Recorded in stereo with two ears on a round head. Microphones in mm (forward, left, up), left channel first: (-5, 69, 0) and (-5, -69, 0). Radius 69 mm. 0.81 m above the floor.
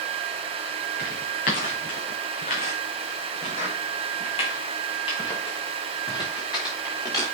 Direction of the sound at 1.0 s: 65° left (ahead or behind).